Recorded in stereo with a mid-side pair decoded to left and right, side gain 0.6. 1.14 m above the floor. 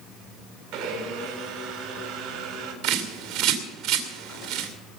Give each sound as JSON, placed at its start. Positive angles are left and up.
{"t": 0.7, "sound": "a blender", "azimuth_deg": -65, "distance_m": 3.5}
{"t": 2.8, "sound": "a bird", "azimuth_deg": -60, "distance_m": 2.5}